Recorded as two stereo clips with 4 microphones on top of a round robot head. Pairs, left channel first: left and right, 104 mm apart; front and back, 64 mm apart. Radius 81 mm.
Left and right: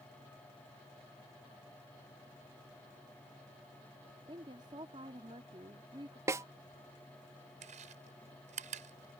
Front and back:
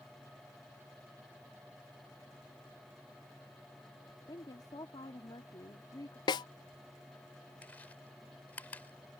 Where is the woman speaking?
35° right.